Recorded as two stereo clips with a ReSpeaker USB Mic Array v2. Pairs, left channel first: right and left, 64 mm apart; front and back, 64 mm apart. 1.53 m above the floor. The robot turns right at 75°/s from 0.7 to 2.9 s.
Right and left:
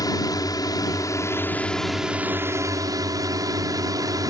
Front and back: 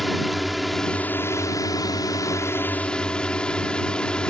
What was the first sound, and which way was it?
A drone, 90° right.